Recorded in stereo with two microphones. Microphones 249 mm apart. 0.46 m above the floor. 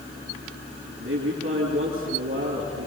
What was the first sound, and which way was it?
A man speaking, 55° right (ahead or behind).